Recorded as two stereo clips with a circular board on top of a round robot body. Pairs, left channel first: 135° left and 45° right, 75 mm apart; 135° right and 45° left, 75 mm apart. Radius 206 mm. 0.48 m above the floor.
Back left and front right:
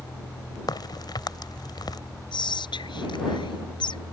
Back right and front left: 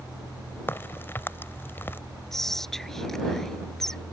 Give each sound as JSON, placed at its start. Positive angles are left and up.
{"t": 0.7, "sound": "a crack", "azimuth_deg": 165}
{"t": 2.3, "sound": "whispering", "azimuth_deg": 140}